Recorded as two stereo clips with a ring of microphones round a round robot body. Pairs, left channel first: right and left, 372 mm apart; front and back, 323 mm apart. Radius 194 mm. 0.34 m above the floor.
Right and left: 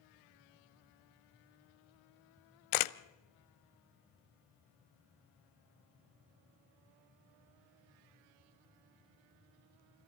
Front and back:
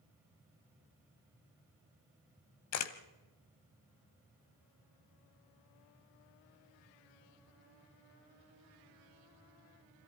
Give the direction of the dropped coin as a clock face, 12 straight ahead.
I don't hear a dropped coin.